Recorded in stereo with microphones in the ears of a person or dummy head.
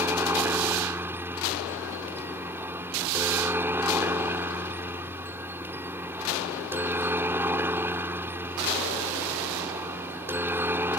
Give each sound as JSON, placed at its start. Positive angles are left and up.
{"t": 0.0, "sound": "a helicopter", "side_deg": -10}